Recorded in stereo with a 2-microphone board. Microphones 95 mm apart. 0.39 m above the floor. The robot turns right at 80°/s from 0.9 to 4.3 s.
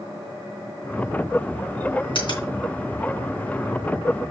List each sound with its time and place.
2.1 s a finger snap: 65° left (ahead or behind), 3.5 m; by 2.5 s 40° left (ahead or behind), 3.5 m